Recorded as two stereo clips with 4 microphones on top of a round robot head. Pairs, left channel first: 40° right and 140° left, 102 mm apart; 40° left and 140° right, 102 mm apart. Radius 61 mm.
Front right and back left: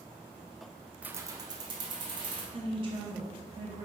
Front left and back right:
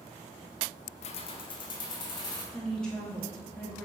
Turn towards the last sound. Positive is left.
turn(degrees=125)